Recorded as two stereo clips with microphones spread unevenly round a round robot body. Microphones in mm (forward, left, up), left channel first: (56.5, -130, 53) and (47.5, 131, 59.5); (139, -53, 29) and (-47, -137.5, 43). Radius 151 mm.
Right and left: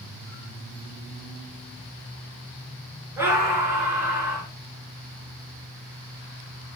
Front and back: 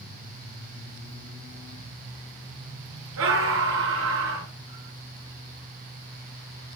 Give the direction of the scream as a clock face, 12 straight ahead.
6 o'clock.